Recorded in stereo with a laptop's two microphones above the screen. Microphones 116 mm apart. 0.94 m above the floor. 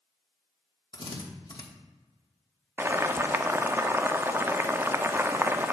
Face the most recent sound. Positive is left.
turn(degrees=-20)  # may be behind; listen again after turning